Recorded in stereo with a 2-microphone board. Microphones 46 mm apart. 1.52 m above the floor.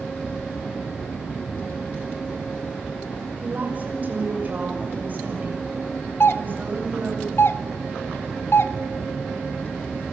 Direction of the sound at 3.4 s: 40° right (ahead or behind).